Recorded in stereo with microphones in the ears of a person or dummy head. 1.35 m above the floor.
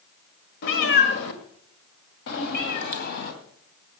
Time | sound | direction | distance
0.6 | a cat meowing | 50° left (ahead or behind) | 1.8 m